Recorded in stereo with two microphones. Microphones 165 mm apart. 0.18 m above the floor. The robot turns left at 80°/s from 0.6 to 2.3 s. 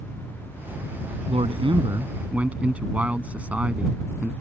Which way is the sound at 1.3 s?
85° right.